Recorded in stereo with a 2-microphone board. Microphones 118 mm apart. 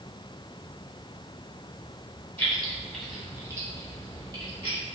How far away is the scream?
No scream in this recording.